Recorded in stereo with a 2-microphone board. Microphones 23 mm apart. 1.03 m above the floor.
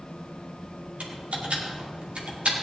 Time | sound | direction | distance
1.0 | typing on a keyboard | 85° right | 2.0 m